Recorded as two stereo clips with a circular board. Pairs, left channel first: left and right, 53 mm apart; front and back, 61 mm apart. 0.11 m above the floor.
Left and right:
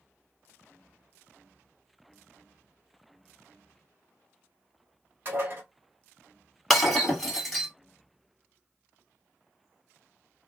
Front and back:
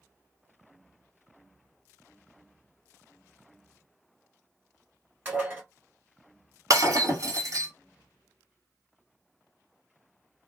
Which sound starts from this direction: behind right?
Dishes clattering, at 5.2 s.